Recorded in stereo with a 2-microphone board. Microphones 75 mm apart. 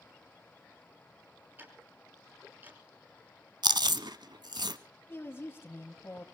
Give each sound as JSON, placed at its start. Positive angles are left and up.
{"t": 1.6, "sound": "ticking", "side_deg": -25, "distance_m": 5.5}
{"t": 3.6, "sound": "chewing", "side_deg": -70, "distance_m": 0.8}
{"t": 5.1, "sound": "a woman speaking", "side_deg": 35, "distance_m": 1.8}